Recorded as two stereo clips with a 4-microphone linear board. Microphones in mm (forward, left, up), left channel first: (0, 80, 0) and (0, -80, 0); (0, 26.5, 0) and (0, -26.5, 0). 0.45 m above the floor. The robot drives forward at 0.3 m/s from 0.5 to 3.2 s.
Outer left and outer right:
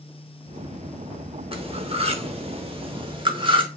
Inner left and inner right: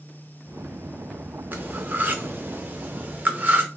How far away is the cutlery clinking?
About 0.6 m.